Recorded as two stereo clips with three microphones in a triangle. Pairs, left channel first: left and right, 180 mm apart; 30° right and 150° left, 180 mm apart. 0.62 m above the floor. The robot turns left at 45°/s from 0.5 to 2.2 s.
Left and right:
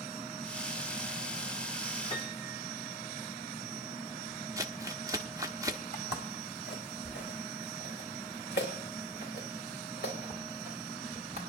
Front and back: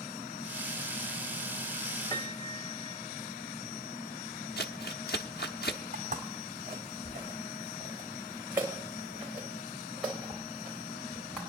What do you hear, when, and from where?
2.1 s a piano: 30° left, 1.3 m
4.6 s crumpling: 20° right, 0.9 m
5.9 s footsteps: 110° left, 2.5 m; by 11.4 s 55° left, 6 m